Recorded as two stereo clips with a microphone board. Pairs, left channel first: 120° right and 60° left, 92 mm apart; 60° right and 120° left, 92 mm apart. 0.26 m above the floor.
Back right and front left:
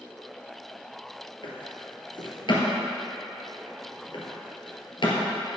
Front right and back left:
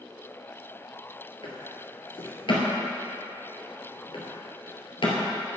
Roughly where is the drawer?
Right.